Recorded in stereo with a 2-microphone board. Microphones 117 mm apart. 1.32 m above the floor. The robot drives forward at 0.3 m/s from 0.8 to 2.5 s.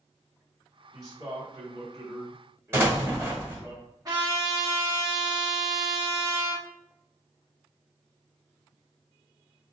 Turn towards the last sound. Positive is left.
turn(degrees=-35)  # may be behind; listen again after turning